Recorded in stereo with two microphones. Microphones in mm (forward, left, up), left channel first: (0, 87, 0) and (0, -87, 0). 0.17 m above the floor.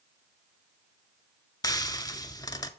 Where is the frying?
20° left (ahead or behind), 0.6 m.